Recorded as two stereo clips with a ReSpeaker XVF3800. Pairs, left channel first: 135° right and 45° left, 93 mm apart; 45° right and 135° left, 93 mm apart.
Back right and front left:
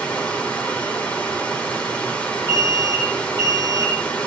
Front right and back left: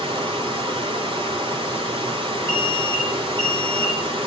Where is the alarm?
175° left, 6.5 m.